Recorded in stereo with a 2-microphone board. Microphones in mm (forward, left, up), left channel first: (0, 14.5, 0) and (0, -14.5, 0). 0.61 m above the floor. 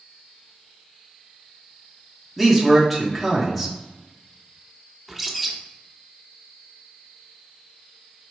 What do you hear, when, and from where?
2.4 s a man speaking: centre (ahead or behind), 1.0 m
5.1 s a bird: 5° right (ahead or behind), 0.5 m